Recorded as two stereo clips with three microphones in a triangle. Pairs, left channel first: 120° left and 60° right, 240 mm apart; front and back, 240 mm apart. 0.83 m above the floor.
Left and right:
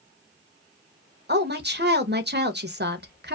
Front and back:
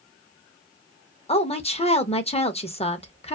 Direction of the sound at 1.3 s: 50° right.